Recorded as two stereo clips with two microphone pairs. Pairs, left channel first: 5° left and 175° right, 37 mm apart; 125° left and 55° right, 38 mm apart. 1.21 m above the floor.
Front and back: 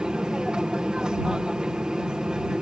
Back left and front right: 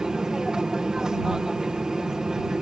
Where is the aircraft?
120° right.